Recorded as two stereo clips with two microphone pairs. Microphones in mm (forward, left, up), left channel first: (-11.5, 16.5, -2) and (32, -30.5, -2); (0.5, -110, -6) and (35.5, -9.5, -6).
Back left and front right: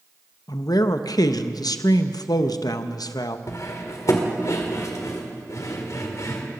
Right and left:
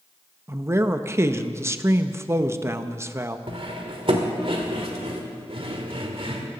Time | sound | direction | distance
0.5 | a man speaking | 140° left | 0.6 m
3.5 | cutlery clinking | 100° left | 1.7 m